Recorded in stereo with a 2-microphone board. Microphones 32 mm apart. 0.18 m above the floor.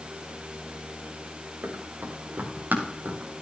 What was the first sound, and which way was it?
Running footsteps, 80° right.